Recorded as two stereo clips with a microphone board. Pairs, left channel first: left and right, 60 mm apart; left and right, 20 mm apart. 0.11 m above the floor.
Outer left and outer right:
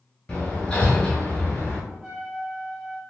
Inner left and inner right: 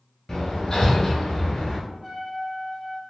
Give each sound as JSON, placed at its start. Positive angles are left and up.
{"t": 0.3, "sound": "hammering", "side_deg": 15, "distance_m": 0.9}
{"t": 1.9, "sound": "a trumpet", "side_deg": -25, "distance_m": 1.6}